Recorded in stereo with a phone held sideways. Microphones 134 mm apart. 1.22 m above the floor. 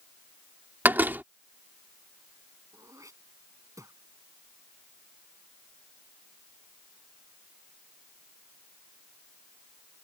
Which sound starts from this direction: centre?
A door slam, at 0.8 s.